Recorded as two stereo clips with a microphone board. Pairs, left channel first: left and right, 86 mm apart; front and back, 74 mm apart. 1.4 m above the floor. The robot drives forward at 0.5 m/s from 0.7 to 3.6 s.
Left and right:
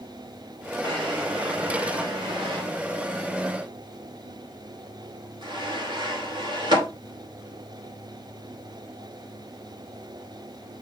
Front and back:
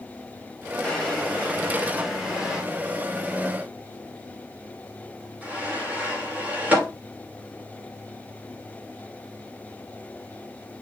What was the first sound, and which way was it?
A drawer, 75° right.